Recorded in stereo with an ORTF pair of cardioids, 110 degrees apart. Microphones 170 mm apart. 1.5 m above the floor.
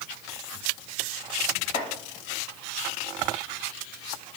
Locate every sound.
1.7 s chopping: 35° left, 1.1 m